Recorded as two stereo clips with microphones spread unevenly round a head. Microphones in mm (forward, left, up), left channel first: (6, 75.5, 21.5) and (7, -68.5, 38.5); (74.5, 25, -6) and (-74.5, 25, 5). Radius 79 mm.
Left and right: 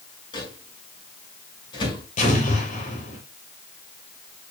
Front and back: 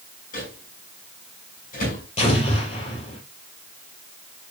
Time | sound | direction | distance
0.3 | a microwave | 30° left | 6 m
2.2 | an explosion | 50° left | 6.5 m